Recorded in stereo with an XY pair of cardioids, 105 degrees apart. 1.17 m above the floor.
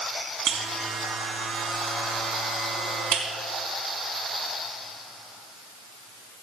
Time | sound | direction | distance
0.5 | a buzzer | 65° right | 4 m